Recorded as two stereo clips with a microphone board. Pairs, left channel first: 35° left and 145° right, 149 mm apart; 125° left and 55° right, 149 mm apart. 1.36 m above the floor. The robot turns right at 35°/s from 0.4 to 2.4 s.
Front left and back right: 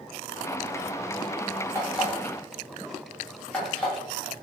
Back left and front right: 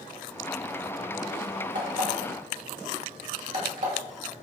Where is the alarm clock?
70° right, 1.6 m; by 3.9 s 50° right, 1.6 m.